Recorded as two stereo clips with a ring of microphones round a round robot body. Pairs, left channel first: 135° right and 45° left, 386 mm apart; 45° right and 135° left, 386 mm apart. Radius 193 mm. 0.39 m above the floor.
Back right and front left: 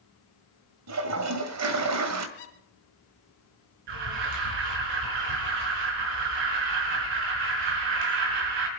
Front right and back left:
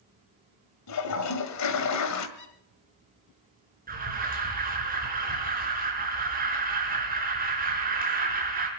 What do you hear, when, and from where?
0.9 s a toilet flushing: straight ahead, 1.7 m
2.4 s a squeak: 105° right, 3.5 m
3.9 s an alarm: 65° left, 4.5 m